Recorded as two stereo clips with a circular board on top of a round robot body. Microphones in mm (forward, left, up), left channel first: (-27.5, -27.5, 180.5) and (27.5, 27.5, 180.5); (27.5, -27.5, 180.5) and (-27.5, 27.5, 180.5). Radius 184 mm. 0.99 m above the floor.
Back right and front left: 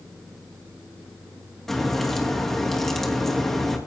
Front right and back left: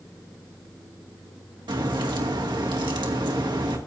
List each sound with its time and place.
1.7 s a crack: 140° left, 2.5 m